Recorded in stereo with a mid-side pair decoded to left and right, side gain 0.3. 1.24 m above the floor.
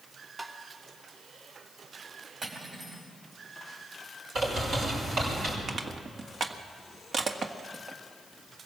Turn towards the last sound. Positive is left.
turn(degrees=-60)